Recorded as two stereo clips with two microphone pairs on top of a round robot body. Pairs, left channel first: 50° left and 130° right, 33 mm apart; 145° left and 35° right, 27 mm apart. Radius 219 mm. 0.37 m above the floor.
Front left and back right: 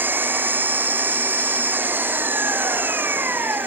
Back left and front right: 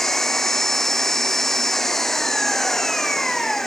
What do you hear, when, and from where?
0.0 s an engine running: 135° right